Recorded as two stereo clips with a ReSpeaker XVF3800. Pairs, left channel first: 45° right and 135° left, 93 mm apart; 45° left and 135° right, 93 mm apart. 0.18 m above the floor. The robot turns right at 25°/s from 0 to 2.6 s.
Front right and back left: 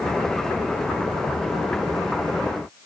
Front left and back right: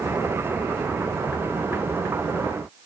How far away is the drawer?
No drawer in this recording.